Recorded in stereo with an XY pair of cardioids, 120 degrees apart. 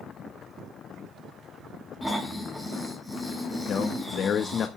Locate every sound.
2.0 s snoring: straight ahead, 6.5 m
3.7 s a man speaking: 55° left, 1.3 m